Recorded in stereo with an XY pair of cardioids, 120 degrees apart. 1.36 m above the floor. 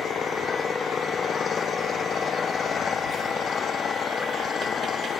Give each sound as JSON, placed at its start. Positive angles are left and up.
{"t": 0.0, "sound": "an engine running", "azimuth_deg": 35}